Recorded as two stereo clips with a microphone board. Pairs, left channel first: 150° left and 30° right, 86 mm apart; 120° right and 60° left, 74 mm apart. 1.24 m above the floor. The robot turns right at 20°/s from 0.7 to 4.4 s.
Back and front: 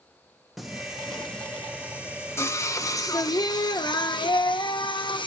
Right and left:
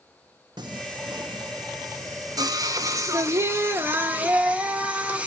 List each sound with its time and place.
0.6 s singing: 60° left, 0.9 m; by 5.3 s 130° left, 0.9 m